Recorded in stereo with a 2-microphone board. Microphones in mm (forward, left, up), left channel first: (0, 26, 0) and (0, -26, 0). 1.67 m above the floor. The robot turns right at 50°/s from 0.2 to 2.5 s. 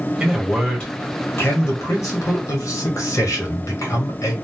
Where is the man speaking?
10° right, 1.4 m; by 4.3 s 105° left, 1.4 m.